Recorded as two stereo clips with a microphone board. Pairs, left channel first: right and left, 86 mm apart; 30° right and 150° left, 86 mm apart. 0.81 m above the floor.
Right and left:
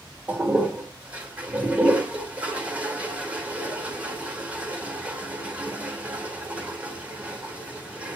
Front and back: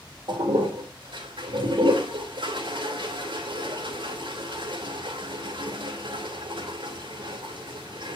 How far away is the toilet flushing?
About 2.5 m.